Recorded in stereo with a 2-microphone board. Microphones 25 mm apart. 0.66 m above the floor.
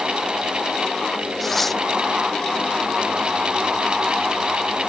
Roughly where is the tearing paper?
Centre.